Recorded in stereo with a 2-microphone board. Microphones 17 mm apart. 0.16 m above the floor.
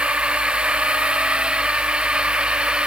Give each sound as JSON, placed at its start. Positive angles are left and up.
{"t": 0.0, "sound": "a drone", "side_deg": -85}